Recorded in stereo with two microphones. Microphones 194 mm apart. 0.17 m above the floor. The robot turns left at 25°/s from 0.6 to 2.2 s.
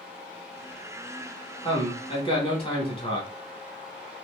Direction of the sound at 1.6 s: 30° left (ahead or behind).